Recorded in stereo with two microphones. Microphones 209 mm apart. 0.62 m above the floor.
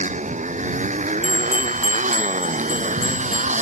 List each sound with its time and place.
0.0 s a motorcycle: 35° right (ahead or behind)
1.2 s a bell: 85° left